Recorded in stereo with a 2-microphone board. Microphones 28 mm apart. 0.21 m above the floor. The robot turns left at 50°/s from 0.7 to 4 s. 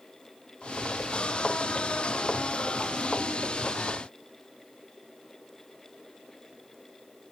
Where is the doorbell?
I don't hear a doorbell.